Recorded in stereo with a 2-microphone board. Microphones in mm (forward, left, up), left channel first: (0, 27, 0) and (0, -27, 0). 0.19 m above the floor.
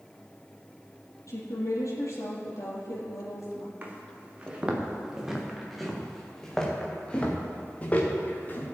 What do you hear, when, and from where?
1.3 s a woman speaking: 80° left, 5 m
3.8 s footsteps: 30° right (ahead or behind), 3.5 m; by 8.7 s 35° left (ahead or behind), 4 m